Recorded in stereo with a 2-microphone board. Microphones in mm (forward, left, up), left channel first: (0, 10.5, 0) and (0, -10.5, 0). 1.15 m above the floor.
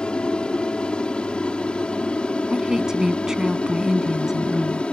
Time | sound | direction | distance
0.0 | an aircraft | 55° left (ahead or behind) | ?
2.5 | a woman speaking | 35° right (ahead or behind) | ?